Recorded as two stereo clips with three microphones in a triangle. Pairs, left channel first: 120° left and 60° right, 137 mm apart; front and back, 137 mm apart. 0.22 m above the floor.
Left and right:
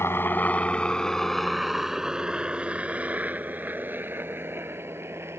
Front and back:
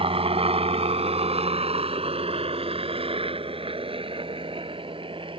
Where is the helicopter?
175° right; by 5.4 s 130° right.